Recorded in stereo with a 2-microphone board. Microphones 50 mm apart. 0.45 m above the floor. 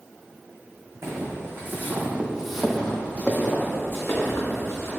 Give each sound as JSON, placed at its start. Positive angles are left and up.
{"t": 1.0, "sound": "footsteps", "side_deg": -60, "distance_m": 1.2}